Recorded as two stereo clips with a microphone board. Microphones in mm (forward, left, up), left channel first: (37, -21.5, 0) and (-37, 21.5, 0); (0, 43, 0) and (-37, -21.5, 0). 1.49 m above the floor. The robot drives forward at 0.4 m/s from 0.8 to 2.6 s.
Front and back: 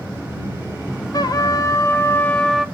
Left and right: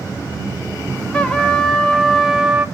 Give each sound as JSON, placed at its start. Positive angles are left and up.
{"t": 1.1, "sound": "a trumpet", "azimuth_deg": -10, "distance_m": 0.7}